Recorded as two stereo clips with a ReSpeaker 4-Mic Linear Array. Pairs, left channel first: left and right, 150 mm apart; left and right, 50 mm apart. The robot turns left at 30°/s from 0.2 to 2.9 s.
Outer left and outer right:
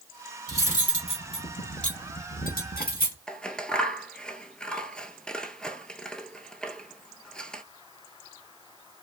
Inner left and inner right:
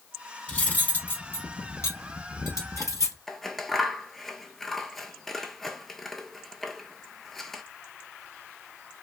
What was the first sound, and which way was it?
Cutlery clinking, 20° left (ahead or behind).